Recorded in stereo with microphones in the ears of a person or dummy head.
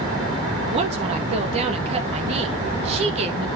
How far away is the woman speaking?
About 2 m.